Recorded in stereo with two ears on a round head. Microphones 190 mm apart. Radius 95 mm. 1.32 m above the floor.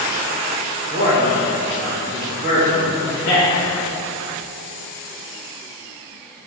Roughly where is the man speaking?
Left.